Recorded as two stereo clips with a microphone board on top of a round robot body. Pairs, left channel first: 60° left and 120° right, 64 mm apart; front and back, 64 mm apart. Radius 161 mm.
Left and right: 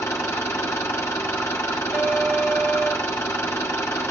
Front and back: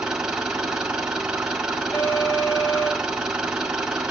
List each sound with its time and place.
0.0 s an engine running: 105° left, 0.9 m
1.9 s an alarm: 60° right, 2.5 m